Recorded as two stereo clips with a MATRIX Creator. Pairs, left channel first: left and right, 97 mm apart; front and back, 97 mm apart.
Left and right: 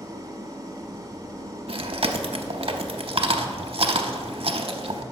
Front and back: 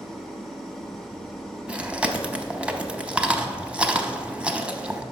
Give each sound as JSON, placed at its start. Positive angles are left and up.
{"t": 0.0, "sound": "an engine running", "azimuth_deg": -85, "distance_m": 0.9}
{"t": 1.7, "sound": "chewing", "azimuth_deg": -100, "distance_m": 0.6}